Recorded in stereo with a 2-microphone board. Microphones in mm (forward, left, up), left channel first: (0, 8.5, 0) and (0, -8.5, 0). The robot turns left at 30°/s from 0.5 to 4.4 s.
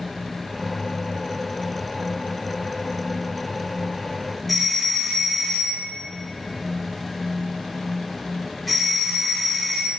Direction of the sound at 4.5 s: 5° left (ahead or behind).